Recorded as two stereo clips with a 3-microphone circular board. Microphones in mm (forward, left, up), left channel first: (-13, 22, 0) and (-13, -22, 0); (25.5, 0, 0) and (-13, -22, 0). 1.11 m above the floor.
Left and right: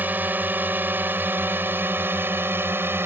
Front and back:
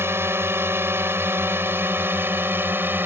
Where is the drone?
135° right; by 3.1 s 115° right.